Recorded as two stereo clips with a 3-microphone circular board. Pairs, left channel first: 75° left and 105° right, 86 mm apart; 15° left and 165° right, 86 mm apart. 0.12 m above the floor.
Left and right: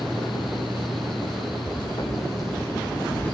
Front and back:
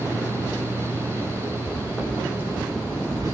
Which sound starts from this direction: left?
Footsteps, at 1.7 s.